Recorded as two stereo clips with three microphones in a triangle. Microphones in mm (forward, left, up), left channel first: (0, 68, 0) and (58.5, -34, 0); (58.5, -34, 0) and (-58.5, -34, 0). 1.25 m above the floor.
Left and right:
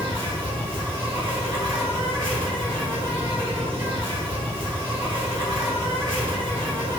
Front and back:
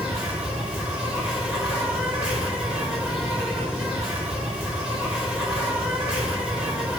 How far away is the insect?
About 1.9 m.